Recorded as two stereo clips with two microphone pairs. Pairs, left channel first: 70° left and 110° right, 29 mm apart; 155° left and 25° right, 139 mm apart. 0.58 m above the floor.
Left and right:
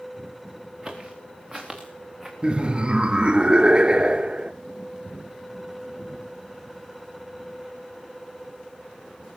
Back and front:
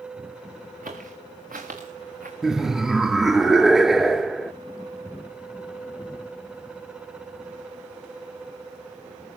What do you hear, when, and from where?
0.8 s footsteps: 35° right, 4 m; by 2.3 s 25° right, 3.5 m
2.4 s laughter: 105° right, 0.7 m